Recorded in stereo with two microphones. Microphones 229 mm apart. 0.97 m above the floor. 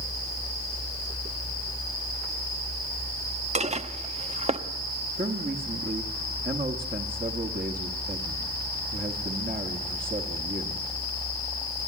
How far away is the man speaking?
About 1.5 m.